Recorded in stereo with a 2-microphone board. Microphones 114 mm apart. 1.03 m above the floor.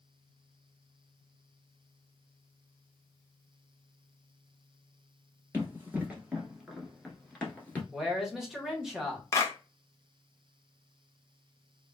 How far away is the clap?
About 0.7 m.